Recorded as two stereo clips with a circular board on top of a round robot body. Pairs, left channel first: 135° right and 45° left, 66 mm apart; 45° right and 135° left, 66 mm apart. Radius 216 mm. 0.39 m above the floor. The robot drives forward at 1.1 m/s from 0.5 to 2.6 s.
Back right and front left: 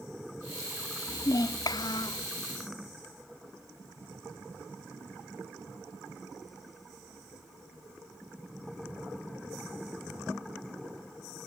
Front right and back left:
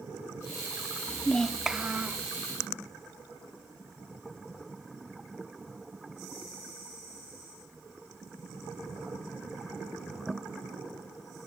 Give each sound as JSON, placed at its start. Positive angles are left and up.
{"t": 1.1, "sound": "a child speaking", "azimuth_deg": -95, "distance_m": 0.7}